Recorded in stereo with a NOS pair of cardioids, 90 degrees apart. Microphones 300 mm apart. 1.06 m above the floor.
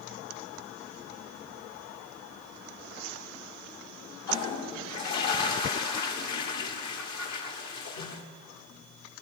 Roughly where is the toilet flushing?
Left.